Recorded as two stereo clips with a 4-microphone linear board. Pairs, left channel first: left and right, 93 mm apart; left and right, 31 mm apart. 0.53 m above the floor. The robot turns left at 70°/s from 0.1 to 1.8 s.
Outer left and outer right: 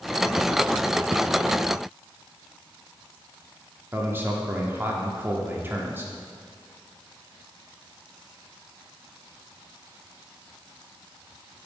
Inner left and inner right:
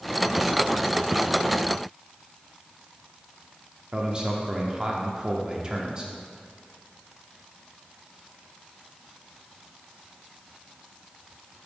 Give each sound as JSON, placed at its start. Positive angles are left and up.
{"t": 3.9, "sound": "a man speaking", "side_deg": -25, "distance_m": 0.9}